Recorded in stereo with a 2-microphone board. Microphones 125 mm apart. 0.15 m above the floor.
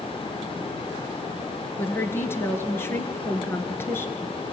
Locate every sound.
1.8 s a woman speaking: 20° left (ahead or behind), 2 m